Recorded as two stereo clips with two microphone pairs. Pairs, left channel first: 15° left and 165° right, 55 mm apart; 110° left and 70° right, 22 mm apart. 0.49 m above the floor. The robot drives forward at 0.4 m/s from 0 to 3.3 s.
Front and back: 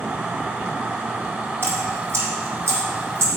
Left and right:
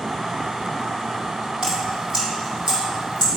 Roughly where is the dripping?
Behind right.